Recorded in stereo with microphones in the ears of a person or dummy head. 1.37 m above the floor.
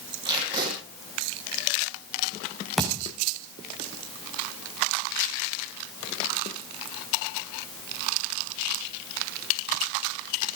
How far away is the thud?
About 5 m.